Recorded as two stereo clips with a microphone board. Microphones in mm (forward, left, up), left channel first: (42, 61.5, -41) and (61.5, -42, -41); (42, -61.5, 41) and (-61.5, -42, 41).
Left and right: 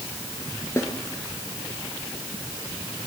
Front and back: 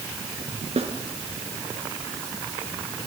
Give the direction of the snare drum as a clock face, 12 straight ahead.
7 o'clock.